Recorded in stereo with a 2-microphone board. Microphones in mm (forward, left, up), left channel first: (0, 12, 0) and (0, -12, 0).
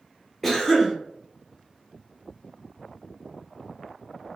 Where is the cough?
10° left (ahead or behind), 0.8 m.